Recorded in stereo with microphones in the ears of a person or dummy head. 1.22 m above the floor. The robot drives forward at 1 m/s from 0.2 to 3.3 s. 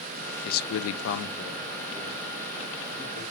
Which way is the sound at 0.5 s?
45° left (ahead or behind).